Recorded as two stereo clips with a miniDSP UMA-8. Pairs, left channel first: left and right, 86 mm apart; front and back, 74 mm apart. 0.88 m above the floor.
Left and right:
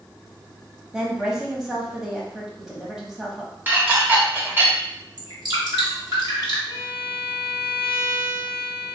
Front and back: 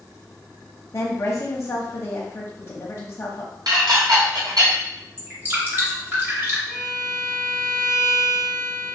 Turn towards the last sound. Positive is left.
turn(degrees=-70)